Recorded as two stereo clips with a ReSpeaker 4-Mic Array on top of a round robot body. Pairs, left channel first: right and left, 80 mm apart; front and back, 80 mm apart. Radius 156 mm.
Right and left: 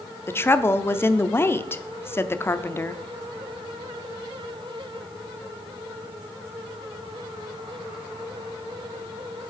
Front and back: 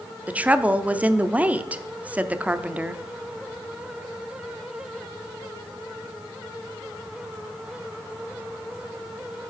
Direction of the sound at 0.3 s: 120° right.